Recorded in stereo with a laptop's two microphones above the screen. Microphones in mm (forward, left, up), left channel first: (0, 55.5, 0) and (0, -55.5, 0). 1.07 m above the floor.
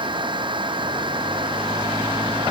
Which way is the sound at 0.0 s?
45° right (ahead or behind).